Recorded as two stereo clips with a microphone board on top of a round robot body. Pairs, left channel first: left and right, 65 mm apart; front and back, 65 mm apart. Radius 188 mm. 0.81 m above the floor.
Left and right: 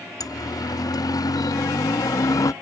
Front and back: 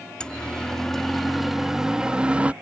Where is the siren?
75° left; by 2.5 s 110° left.